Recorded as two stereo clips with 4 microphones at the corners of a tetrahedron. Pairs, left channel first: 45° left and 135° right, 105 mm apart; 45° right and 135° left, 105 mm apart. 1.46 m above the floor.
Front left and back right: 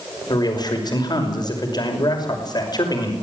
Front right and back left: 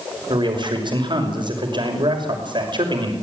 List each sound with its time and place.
0.3 s a man speaking: 95° left, 5.5 m